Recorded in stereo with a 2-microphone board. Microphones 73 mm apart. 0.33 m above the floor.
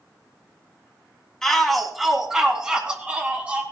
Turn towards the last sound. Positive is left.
turn(degrees=-20)  # may be behind; listen again after turning